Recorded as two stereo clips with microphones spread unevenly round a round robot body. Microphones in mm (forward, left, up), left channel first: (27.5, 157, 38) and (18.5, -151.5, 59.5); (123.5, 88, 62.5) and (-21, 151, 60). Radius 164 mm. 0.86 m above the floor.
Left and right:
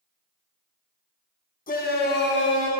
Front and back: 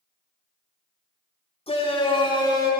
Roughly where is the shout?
Ahead left.